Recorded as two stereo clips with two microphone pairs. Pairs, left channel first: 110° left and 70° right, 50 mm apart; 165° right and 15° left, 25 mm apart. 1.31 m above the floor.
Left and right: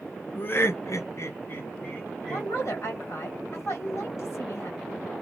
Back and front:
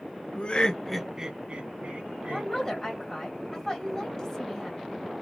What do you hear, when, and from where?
0.3 s laughter: 160° left, 0.7 m; by 2.5 s 40° left, 1.3 m
2.3 s a woman speaking: 130° left, 1.2 m